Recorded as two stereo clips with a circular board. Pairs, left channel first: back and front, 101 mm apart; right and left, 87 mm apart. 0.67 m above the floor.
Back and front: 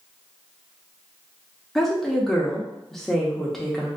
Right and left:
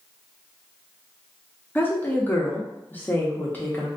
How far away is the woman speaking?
About 0.7 m.